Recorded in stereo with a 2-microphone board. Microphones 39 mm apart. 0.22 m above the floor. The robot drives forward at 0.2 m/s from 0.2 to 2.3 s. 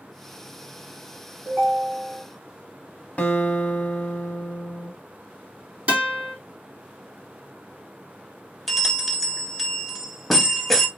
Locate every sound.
1.4 s a ringtone: 50° right (ahead or behind), 1.4 m
3.2 s a guitar: 35° left (ahead or behind), 0.6 m
5.9 s a guitar: 40° right (ahead or behind), 2 m
8.7 s a bell: centre (ahead or behind), 0.5 m